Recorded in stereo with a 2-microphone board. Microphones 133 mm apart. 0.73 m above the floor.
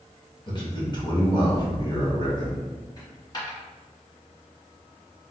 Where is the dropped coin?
35° left (ahead or behind), 1.4 m.